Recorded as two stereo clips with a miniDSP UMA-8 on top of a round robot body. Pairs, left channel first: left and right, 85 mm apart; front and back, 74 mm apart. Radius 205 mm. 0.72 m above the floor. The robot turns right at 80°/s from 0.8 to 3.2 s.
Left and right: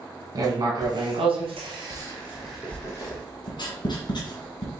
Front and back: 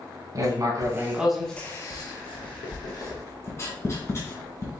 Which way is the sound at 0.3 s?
135° right.